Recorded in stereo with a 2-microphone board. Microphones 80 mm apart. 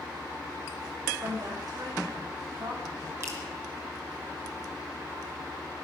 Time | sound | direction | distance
1.2 | a woman speaking | 60° right (ahead or behind) | 6.5 m
3.2 | dripping | 35° right (ahead or behind) | 3.5 m